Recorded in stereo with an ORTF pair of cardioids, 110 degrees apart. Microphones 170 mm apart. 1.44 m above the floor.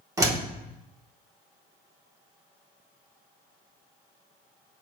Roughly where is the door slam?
Ahead.